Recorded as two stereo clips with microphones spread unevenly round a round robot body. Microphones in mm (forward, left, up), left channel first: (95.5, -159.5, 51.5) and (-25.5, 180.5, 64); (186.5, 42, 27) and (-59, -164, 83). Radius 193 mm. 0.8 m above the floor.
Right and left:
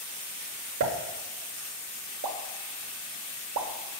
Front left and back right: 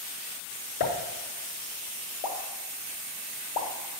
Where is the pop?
65° left, 0.6 m.